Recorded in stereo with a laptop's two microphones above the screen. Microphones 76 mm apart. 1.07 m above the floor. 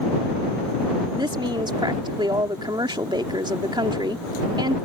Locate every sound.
1.1 s a woman speaking: 75° right (ahead or behind)